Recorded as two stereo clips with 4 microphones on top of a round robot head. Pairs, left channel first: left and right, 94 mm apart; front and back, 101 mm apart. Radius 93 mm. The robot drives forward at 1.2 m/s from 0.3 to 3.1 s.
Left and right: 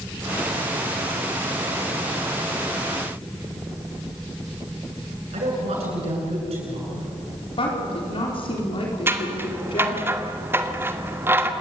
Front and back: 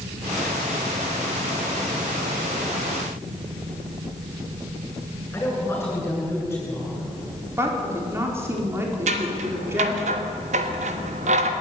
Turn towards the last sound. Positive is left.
turn(degrees=-155)